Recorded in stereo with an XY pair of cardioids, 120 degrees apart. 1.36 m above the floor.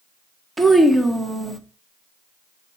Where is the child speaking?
15° right, 0.7 m.